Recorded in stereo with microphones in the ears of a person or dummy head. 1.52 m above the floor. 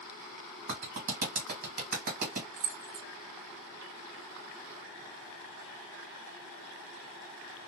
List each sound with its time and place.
0.7 s a clap: 50° right (ahead or behind), 1.2 m
2.6 s keys jangling: 60° right (ahead or behind), 0.9 m